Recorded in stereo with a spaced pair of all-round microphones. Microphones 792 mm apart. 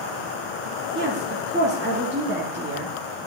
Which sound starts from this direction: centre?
A woman speaking, at 0.9 s.